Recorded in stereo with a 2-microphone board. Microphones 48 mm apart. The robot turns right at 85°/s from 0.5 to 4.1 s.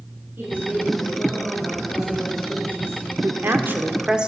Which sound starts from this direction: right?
A woman speaking, at 3.2 s.